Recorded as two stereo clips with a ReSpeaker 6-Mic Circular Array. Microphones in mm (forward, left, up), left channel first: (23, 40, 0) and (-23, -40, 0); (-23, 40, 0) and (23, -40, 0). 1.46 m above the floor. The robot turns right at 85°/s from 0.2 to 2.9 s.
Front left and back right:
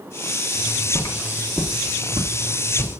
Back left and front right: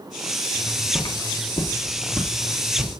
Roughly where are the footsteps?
Ahead left.